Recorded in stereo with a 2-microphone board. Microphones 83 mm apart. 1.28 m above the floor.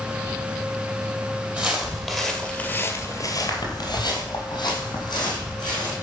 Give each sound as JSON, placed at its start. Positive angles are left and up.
{"t": 1.6, "sound": "footsteps", "side_deg": -15, "distance_m": 2.5}